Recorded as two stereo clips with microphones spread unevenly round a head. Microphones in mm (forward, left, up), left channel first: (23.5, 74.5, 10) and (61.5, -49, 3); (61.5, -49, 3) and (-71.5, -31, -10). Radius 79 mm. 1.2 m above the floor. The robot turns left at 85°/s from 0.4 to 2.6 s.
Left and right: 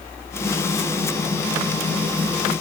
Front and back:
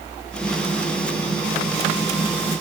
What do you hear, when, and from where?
Only background noise.